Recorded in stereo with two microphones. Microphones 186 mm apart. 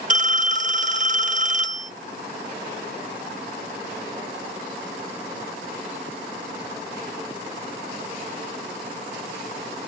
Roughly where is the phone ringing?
Right.